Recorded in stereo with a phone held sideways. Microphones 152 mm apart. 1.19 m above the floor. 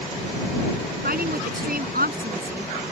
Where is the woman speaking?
75° right (ahead or behind).